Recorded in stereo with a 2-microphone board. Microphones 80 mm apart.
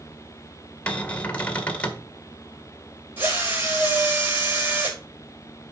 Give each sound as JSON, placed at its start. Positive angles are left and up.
{"t": 0.9, "sound": "a cupboard door", "side_deg": 15, "distance_m": 1.7}
{"t": 3.2, "sound": "a drill", "side_deg": -25, "distance_m": 5.5}